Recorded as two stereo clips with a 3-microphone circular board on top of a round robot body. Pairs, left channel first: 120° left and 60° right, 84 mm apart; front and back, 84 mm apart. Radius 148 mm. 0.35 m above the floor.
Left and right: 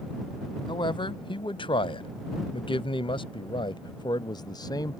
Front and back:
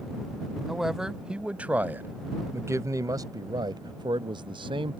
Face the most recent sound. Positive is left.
turn(degrees=165)